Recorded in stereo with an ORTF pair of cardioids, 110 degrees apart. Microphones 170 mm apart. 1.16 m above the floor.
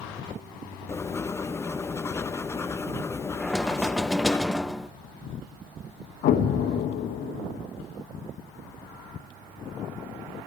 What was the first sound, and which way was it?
Writing, 15° left.